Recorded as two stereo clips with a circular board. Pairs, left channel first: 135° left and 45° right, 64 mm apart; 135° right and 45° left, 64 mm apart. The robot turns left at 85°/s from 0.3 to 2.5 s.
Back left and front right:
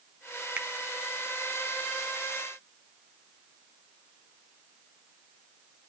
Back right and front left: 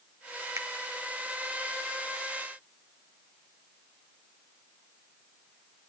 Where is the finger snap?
20° left, 1.1 m; by 0.7 s 10° left, 1.1 m.